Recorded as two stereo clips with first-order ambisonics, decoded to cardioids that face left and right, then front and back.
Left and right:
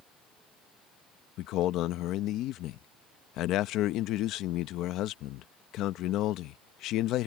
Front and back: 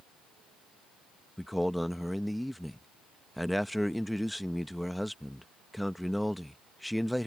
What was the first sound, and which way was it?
A man speaking, 90° left.